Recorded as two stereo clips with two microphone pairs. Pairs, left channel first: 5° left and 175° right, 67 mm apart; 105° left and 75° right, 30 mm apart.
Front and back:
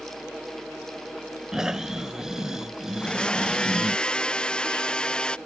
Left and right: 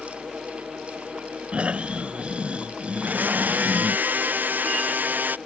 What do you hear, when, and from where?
1.5 s snoring: 95° right
3.0 s a blender: 70° right